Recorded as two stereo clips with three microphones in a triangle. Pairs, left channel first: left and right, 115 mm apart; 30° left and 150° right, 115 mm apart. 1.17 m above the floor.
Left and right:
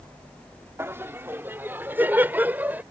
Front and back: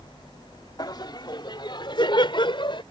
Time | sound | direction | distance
0.8 | laughter | 20° right | ?